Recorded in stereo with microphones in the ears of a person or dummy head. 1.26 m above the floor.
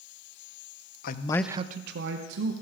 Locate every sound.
1.0 s a man speaking: 50° left (ahead or behind), 0.8 m; by 2.5 s 75° right (ahead or behind), 1.7 m